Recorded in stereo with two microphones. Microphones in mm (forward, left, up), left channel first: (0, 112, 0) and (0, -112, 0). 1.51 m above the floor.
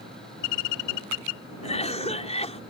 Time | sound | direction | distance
1.6 | a cough | 30° left (ahead or behind) | ?